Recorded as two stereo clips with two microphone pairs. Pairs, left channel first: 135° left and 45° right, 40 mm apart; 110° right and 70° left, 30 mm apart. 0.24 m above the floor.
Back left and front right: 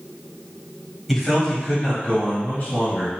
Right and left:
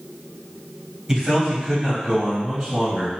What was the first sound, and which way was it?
A man speaking, 40° left.